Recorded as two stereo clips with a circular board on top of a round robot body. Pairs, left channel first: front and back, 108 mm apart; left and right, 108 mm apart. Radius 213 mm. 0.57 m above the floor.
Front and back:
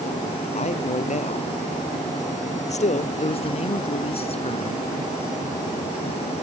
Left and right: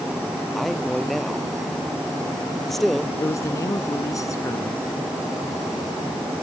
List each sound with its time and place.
0.6 s a man speaking: straight ahead
3.2 s a man speaking: 30° left